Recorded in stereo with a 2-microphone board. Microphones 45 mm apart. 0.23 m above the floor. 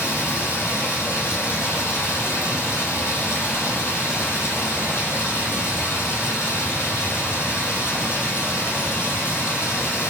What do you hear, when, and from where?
0.0 s running water: 80° left, 4 m